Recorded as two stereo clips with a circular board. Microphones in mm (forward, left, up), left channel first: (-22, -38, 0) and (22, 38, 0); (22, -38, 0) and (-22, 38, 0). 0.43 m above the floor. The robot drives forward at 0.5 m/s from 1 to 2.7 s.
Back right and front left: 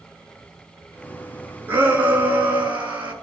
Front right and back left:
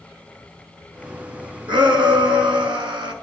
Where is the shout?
125° left, 4 m; by 3.1 s 130° left, 4.5 m.